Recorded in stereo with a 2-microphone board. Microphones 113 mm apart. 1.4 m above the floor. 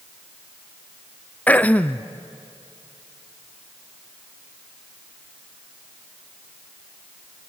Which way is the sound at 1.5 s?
15° left (ahead or behind).